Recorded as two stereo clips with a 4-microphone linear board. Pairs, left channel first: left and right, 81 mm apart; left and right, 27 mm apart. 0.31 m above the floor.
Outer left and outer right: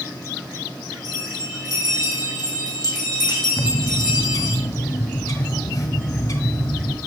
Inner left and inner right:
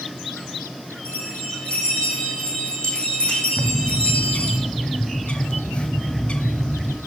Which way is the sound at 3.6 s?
50° left (ahead or behind).